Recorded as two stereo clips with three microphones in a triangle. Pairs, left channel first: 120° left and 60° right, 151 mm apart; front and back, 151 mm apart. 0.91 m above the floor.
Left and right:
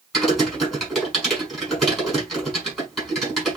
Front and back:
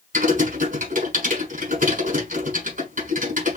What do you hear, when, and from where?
0.1 s typing on a keyboard: 150° right, 7 m